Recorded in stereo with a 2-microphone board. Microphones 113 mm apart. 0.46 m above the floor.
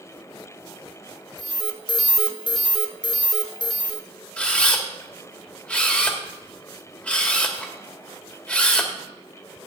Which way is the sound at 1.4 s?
45° left (ahead or behind).